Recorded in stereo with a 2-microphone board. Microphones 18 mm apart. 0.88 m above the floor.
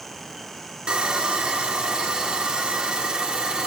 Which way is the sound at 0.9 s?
70° right (ahead or behind).